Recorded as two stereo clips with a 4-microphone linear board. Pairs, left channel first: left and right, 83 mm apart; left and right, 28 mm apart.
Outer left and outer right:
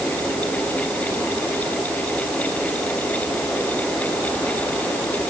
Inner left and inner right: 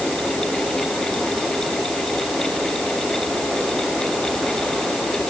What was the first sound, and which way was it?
Only background noise.